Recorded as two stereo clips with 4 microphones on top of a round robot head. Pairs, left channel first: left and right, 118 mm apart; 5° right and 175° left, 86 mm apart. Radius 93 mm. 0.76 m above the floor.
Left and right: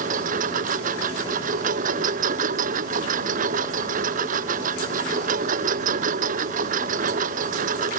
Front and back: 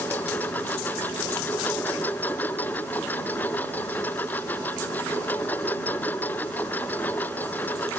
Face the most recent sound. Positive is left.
turn(degrees=-85)